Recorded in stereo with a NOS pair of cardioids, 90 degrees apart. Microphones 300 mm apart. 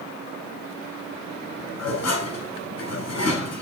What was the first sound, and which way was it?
Dishes clattering, 55° left.